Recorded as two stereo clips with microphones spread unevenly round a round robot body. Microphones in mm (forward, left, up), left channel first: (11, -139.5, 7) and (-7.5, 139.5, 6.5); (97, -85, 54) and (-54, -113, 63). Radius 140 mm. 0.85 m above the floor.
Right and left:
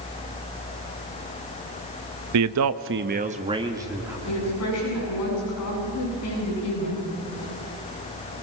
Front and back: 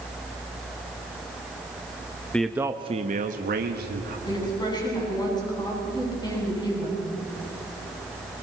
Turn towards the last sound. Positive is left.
turn(degrees=-50)